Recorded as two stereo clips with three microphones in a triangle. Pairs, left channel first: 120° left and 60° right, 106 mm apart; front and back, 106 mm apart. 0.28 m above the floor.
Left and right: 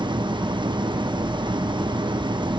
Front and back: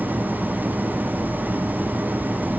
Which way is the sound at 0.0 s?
105° right.